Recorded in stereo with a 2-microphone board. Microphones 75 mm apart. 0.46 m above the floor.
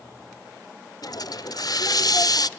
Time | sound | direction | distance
1.0 | a hiss | 55° left (ahead or behind) | 0.6 m